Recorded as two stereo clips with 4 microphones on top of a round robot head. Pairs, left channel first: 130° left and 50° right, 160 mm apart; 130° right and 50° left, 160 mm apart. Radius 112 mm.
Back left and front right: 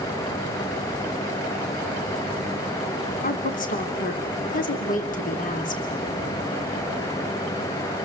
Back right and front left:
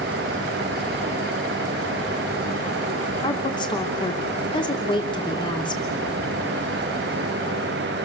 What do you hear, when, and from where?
3.2 s a woman speaking: 165° left, 2.5 m